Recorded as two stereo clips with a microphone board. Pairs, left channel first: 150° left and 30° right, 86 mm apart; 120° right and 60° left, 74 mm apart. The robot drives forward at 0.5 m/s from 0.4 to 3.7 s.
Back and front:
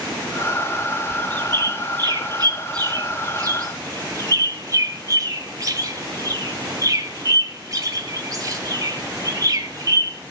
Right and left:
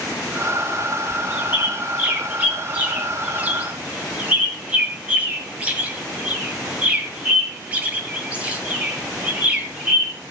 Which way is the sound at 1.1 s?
5° right.